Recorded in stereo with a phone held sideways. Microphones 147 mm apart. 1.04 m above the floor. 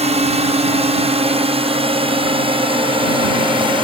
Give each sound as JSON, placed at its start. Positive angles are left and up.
{"t": 0.0, "sound": "a drone", "side_deg": -45}